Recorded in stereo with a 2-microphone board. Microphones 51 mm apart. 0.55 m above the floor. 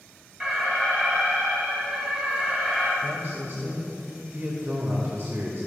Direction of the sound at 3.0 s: 40° right (ahead or behind).